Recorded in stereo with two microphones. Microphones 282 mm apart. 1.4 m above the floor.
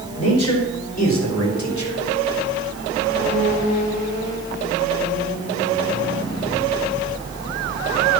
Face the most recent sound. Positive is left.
turn(degrees=85)